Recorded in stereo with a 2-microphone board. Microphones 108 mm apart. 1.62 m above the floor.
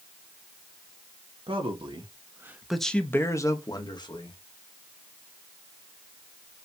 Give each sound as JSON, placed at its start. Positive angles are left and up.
{"t": 1.5, "sound": "a man speaking", "side_deg": -65, "distance_m": 1.0}